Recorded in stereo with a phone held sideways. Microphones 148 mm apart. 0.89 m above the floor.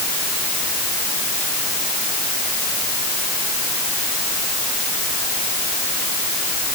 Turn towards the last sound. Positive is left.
No sound to turn to.